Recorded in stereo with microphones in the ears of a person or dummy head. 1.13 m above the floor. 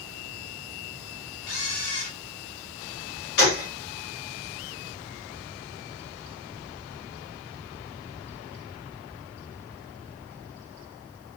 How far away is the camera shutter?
About 2.5 m.